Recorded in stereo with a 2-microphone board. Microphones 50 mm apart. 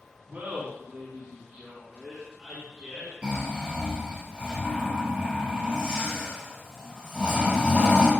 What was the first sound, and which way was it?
Laughter, 35° right (ahead or behind).